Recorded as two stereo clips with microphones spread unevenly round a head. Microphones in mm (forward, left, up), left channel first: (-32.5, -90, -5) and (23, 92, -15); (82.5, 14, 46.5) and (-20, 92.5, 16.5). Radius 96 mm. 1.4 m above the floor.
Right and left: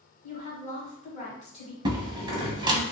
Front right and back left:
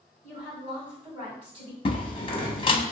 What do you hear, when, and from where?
0.2 s a woman speaking: 165° right, 1.4 m
1.9 s a door slam: 5° left, 0.8 m